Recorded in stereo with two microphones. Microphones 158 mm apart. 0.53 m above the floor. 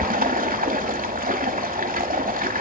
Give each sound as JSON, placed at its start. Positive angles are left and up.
{"t": 0.0, "sound": "running water", "side_deg": -65, "distance_m": 0.9}